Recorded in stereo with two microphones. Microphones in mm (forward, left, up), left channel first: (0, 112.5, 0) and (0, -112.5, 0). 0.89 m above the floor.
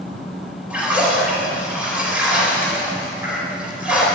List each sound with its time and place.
0.7 s a splash: 5° right (ahead or behind), 5 m